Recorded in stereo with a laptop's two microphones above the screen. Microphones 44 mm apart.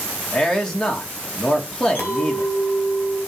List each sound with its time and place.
0.3 s a man speaking: 10° left (ahead or behind), 1.6 m
1.9 s a clink: 40° left (ahead or behind), 3 m